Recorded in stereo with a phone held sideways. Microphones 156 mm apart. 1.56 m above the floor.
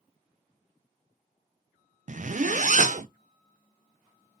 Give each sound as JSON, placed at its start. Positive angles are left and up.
{"t": 2.1, "sound": "a zipper", "side_deg": -55, "distance_m": 0.5}